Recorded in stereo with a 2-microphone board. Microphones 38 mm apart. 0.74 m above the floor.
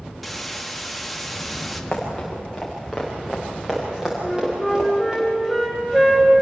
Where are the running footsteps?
10° left (ahead or behind), 5 m; by 5.2 s 25° right (ahead or behind), 8.5 m.